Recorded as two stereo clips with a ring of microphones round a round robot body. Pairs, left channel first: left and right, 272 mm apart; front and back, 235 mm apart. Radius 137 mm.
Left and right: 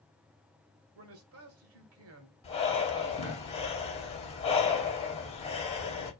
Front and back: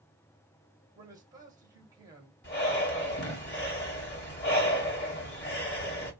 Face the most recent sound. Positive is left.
turn(degrees=25)